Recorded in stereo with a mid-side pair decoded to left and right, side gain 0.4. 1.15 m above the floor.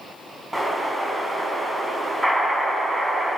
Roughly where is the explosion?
Ahead.